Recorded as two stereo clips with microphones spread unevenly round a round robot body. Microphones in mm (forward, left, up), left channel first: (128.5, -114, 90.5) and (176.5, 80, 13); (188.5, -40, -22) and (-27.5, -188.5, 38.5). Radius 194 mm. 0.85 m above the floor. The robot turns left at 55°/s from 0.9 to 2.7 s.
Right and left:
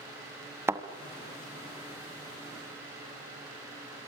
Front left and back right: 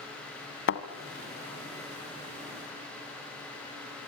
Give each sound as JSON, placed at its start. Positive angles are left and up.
{"t": 0.7, "sound": "a thud", "azimuth_deg": -10, "distance_m": 1.9}